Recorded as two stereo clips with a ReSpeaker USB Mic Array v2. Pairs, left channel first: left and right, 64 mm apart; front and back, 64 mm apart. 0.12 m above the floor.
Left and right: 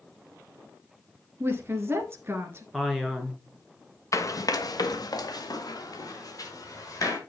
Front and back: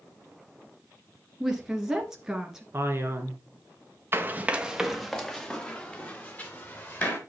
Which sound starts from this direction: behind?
A man speaking, at 2.7 s.